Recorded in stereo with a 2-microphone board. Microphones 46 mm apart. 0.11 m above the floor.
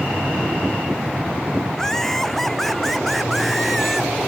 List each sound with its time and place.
1.7 s laughter: 10° left (ahead or behind); by 4.1 s centre (ahead or behind)